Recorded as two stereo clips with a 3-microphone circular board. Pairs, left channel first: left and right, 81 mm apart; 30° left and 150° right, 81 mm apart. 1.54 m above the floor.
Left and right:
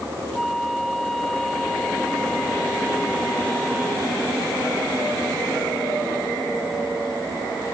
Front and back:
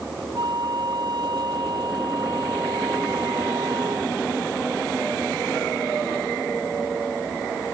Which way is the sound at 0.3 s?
Straight behind.